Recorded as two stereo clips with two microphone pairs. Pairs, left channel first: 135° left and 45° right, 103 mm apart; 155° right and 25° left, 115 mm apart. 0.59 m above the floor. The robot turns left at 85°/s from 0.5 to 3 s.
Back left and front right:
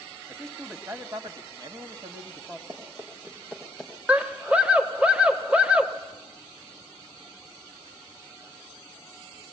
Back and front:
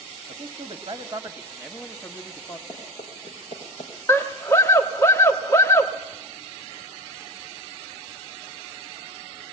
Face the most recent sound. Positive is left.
turn(degrees=-110)